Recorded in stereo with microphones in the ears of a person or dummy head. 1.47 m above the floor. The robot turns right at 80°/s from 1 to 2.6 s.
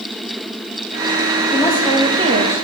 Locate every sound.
1.5 s a woman speaking: 155° left, 1.4 m; by 2.5 s 120° right, 1.4 m